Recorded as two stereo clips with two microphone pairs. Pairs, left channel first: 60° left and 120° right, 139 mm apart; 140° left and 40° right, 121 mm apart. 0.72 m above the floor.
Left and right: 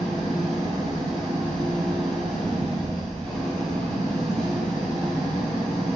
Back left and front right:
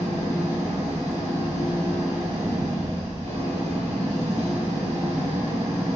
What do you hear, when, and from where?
0.0 s an engine running: 30° right, 2.5 m